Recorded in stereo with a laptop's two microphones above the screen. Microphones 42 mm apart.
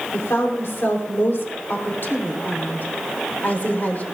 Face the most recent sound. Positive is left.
turn(degrees=45)  # may be behind; listen again after turning